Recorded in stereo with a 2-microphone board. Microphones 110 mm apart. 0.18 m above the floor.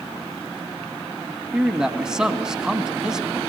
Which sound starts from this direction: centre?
A man speaking, at 1.5 s.